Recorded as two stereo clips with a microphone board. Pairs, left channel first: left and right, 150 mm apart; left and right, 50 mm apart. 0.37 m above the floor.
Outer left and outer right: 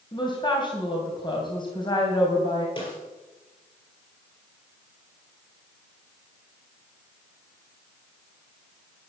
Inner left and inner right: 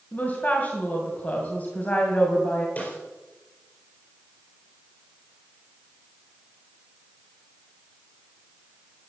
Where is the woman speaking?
30° left (ahead or behind), 2.5 m.